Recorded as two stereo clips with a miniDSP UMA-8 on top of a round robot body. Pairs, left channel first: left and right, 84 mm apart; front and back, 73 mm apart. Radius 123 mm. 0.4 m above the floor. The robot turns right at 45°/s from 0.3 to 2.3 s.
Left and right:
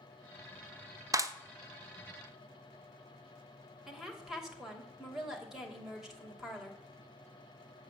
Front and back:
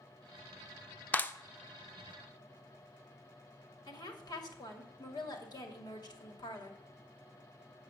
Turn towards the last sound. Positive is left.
turn(degrees=-5)